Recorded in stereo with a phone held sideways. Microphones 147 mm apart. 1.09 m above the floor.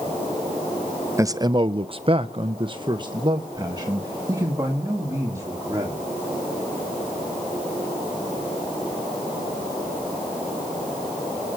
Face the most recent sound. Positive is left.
turn(degrees=-20)  # may be behind; listen again after turning